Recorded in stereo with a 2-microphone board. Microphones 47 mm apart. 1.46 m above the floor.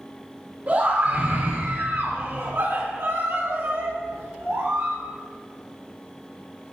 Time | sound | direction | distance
0.7 | a scream | 40° right (ahead or behind) | 2.5 m